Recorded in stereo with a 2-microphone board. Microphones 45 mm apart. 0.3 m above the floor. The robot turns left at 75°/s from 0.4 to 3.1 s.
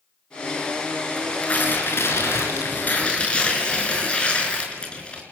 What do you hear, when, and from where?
1.2 s tearing paper: 170° left, 5 m; by 5.2 s 25° left, 5 m